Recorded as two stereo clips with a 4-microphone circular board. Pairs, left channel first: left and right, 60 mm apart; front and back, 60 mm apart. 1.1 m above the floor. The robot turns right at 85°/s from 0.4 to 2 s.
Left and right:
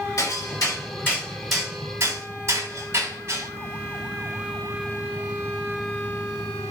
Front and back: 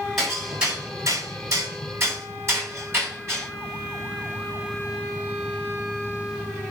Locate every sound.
0.2 s hammering: 90° left, 7.5 m; by 3.5 s 135° right, 7.5 m